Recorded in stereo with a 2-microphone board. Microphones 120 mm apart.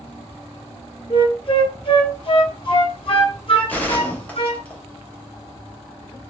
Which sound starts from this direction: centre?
A gunshot, at 3.7 s.